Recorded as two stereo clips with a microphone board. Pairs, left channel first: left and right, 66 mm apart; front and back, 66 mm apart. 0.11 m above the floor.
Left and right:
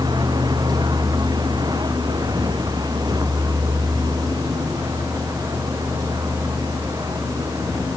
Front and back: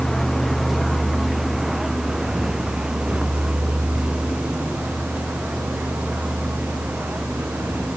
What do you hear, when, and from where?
0.0 s a vehicle: 85° right; by 8.0 s 115° right